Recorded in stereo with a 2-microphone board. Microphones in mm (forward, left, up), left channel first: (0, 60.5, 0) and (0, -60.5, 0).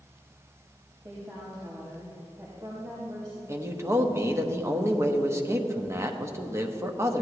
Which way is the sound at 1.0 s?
35° right (ahead or behind).